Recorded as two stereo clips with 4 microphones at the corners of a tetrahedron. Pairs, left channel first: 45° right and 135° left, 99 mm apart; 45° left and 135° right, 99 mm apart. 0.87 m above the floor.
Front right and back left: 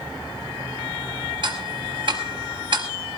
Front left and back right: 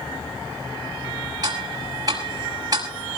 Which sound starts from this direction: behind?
Ticking, at 1.4 s.